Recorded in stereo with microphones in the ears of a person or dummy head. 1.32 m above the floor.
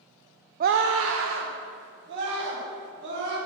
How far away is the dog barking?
I don't hear a dog barking.